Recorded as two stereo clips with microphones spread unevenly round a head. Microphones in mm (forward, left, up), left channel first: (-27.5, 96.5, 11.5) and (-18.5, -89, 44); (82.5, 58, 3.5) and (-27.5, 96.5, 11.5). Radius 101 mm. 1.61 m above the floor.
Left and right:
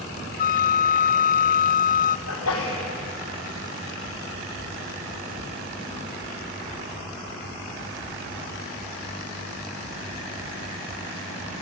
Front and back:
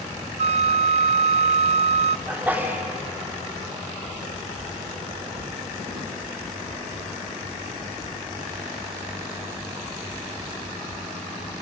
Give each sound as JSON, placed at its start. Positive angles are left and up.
{"t": 0.4, "sound": "a flute", "azimuth_deg": 140, "distance_m": 0.5}
{"t": 2.3, "sound": "a sneeze", "azimuth_deg": 85, "distance_m": 4.0}